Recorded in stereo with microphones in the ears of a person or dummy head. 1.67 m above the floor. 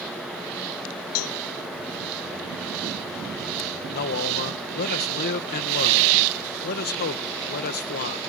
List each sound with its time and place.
1.1 s a cowbell: 85° left
3.9 s a man speaking: 50° left (ahead or behind)